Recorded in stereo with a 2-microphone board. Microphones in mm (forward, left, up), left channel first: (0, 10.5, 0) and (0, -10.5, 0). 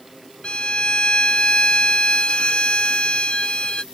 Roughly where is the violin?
Left.